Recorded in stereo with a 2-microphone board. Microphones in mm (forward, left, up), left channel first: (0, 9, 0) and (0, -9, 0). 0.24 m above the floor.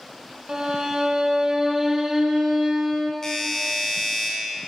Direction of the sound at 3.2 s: 25° left (ahead or behind).